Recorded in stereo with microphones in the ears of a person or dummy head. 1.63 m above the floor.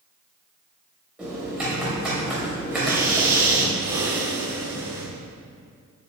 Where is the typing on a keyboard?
5° right (ahead or behind), 2.5 m.